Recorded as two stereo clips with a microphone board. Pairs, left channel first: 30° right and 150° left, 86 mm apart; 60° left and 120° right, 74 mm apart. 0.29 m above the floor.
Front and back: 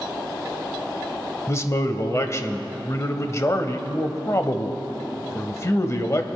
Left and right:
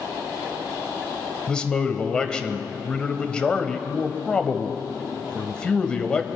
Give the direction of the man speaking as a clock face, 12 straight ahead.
12 o'clock.